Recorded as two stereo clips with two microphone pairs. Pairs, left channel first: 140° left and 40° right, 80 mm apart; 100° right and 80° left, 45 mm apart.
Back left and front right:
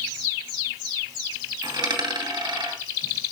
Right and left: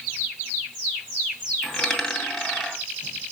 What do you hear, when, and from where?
1.6 s a dropped coin: 20° right, 2.5 m